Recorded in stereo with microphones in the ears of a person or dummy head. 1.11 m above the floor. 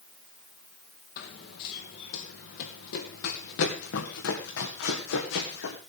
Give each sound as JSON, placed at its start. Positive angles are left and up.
{"t": 1.2, "sound": "running footsteps", "side_deg": 55, "distance_m": 2.0}